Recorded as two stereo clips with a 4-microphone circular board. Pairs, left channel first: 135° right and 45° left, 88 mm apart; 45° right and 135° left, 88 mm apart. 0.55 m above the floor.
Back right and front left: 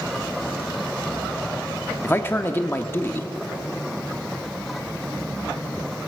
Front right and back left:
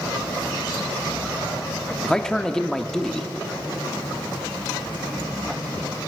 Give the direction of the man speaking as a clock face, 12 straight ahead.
4 o'clock.